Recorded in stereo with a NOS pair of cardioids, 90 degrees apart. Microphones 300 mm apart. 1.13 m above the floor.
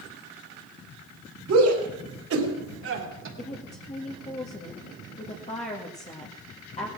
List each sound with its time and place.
1.5 s a shout: 55° right, 4 m; by 3.3 s 40° right, 3 m
3.4 s a woman speaking: 20° left, 2 m